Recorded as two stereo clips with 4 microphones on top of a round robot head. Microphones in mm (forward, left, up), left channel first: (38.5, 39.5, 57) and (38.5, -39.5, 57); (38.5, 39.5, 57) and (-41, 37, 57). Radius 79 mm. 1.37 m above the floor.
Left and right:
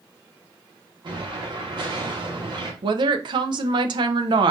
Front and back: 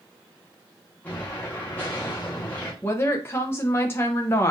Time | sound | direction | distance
1.0 | an explosion | 70° right | 1.4 m
2.8 | a woman speaking | 65° right | 0.7 m